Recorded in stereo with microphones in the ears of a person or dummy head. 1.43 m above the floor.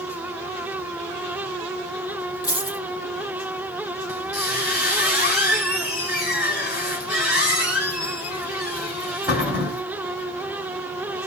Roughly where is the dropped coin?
Left.